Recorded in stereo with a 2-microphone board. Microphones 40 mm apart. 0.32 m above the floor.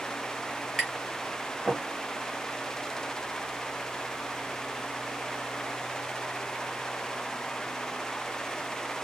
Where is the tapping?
Centre (ahead or behind), 1.4 m.